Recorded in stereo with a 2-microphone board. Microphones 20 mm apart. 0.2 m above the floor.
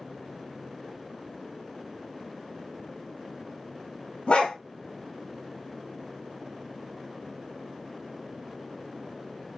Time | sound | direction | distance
4.3 | a dog barking | 75° left (ahead or behind) | 1.1 m